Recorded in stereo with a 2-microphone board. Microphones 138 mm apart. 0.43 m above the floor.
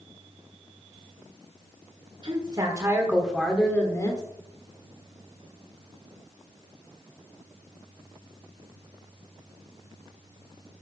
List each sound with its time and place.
2.2 s a woman speaking: 40° right (ahead or behind), 1.6 m; by 4.2 s 30° left (ahead or behind), 1.4 m